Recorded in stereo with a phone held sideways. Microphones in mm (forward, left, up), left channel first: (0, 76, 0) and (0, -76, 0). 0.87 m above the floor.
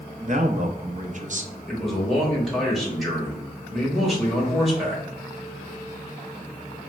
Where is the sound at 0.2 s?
55° right (ahead or behind), 0.6 m.